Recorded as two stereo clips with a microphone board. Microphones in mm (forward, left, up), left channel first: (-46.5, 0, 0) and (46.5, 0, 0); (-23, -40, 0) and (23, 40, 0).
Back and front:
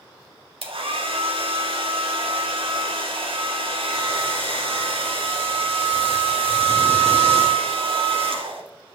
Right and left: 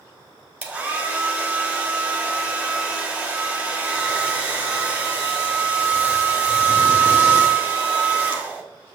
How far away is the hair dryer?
About 1.5 m.